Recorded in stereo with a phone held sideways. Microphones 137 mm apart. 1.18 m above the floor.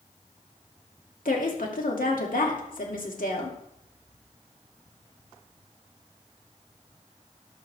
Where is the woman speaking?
80° left, 2.5 m.